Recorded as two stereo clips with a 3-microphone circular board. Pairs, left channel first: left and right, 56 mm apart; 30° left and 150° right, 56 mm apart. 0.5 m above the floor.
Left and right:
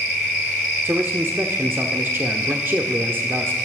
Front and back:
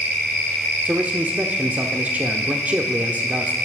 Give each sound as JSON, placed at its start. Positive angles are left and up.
{"t": 0.8, "sound": "a man speaking", "azimuth_deg": -105, "distance_m": 0.9}